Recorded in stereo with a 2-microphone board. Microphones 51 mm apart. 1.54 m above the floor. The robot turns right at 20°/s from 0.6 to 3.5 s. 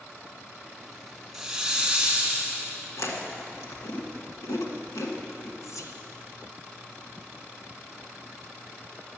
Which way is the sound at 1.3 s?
Centre (ahead or behind).